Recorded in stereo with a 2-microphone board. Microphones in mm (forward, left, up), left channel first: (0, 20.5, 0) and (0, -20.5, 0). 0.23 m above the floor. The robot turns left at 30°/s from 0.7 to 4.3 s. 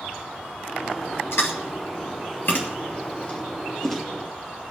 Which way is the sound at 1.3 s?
75° left (ahead or behind).